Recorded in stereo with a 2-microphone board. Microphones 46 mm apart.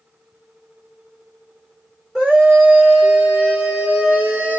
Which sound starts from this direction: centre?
A scream, at 2.1 s.